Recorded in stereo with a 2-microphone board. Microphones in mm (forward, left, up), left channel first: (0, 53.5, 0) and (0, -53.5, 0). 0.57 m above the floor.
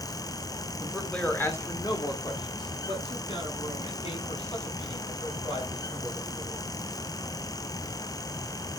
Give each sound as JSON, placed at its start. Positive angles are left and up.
{"t": 0.8, "sound": "a man speaking", "side_deg": 0, "distance_m": 1.2}